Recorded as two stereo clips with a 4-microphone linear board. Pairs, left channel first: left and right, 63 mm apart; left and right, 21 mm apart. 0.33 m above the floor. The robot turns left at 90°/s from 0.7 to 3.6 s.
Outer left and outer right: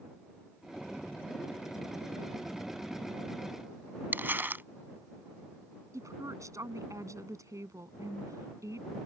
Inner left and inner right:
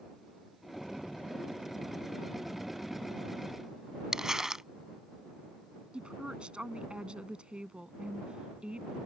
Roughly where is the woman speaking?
Right.